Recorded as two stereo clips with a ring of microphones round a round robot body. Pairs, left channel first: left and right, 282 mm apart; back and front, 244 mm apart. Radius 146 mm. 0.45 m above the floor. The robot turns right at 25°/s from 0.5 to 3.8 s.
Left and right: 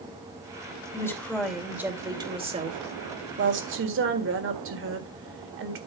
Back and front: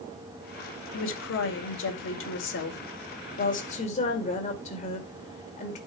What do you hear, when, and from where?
0.9 s a woman speaking: 165° left, 2 m; by 5.8 s 120° right, 2 m